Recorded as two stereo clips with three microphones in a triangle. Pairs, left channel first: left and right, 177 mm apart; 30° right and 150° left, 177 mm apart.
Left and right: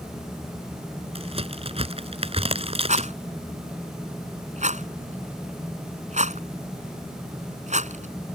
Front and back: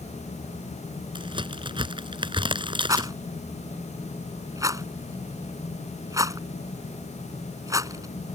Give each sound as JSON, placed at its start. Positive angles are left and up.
{"t": 1.1, "sound": "a crack", "azimuth_deg": -145}
{"t": 2.9, "sound": "a rattle", "azimuth_deg": -140}